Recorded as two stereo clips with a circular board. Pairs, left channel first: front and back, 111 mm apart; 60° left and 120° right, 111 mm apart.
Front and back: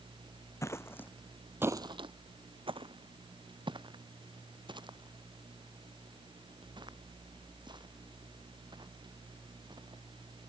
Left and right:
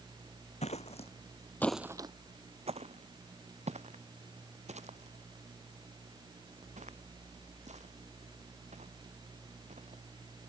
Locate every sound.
0.6 s footsteps: 65° left; by 10.0 s 130° right